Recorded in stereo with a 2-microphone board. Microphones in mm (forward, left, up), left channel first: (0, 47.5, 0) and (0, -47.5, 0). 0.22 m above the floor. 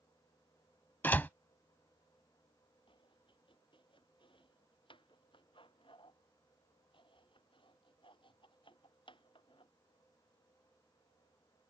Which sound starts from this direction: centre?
A door slam, at 1.0 s.